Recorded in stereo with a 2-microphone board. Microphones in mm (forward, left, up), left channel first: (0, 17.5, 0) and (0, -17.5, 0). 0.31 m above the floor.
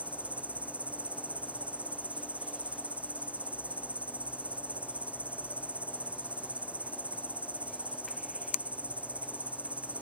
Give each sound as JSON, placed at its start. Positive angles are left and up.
{"t": 0.0, "sound": "an insect", "side_deg": -40}